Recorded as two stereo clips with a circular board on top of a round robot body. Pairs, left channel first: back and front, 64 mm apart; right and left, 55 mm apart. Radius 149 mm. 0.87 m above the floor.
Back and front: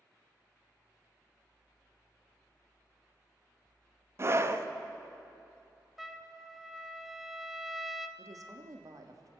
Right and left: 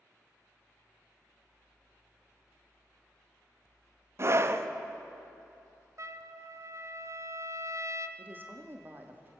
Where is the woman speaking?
35° left, 2 m.